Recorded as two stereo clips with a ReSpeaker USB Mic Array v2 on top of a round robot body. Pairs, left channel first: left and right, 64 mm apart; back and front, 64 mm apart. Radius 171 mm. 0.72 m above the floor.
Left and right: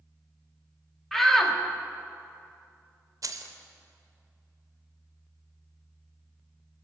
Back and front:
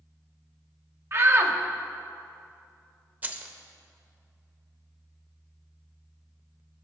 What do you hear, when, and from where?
1.1 s a shout: 5° left, 1.0 m
3.2 s keys jangling: 65° right, 0.6 m